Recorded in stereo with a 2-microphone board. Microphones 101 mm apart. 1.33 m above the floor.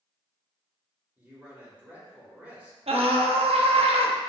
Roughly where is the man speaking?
Centre.